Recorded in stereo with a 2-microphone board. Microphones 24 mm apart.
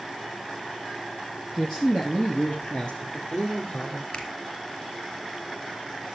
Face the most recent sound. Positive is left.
turn(degrees=45)  # may be behind; listen again after turning